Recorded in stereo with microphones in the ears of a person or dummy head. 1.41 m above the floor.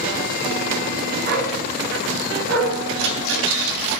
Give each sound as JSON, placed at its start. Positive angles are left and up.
{"t": 1.2, "sound": "a dog barking", "side_deg": -50, "distance_m": 5.0}
{"t": 3.0, "sound": "a rattle", "side_deg": -70, "distance_m": 3.0}